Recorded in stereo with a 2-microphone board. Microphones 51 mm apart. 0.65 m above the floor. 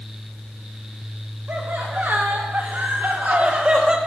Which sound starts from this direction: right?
Laughter, at 1.5 s.